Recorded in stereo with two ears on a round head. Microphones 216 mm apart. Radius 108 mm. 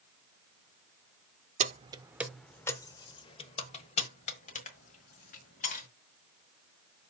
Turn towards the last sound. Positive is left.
turn(degrees=35)  # may be behind; listen again after turning